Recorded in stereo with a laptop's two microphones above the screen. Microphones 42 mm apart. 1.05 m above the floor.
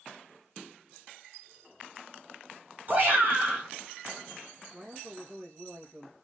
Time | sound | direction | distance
2.9 | a shout | 40° right (ahead or behind) | 3.5 m
4.7 | a man speaking | 25° right (ahead or behind) | 1.3 m